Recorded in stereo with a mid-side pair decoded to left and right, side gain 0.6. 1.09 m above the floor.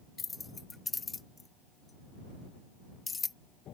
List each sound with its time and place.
0.2 s keys jangling: 25° left